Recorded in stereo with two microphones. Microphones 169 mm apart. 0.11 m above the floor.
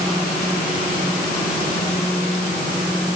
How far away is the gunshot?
I don't hear a gunshot.